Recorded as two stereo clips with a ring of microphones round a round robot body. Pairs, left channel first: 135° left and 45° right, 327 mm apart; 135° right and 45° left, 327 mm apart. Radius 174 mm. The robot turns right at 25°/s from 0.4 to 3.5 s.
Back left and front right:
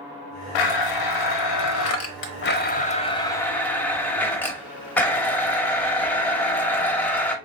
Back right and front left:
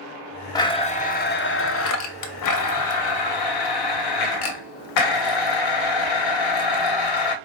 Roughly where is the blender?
Behind left.